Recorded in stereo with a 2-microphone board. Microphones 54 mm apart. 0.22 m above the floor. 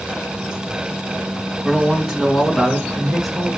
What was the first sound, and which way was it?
A man speaking, 10° right (ahead or behind).